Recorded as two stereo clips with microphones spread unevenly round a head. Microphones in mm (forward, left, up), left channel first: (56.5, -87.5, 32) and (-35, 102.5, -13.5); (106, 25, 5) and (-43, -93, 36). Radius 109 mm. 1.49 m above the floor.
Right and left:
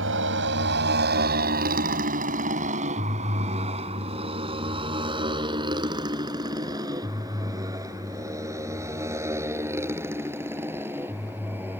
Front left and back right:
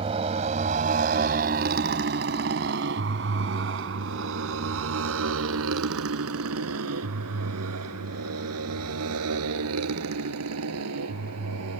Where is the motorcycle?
155° left; by 11.8 s 160° right.